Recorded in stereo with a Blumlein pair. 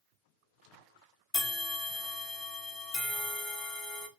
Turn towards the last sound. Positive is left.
turn(degrees=15)